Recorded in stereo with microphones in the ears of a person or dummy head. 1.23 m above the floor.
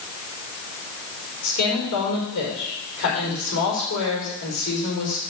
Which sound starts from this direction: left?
A woman speaking, at 1.4 s.